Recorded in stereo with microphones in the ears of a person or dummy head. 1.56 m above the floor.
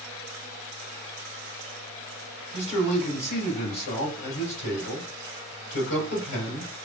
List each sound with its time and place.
2.5 s a man speaking: 65° left (ahead or behind), 2 m